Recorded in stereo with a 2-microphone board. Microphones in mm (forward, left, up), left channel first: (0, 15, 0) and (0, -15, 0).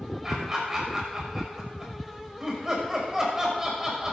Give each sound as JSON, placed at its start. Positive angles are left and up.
{"t": 0.2, "sound": "laughter", "side_deg": -20, "distance_m": 6.0}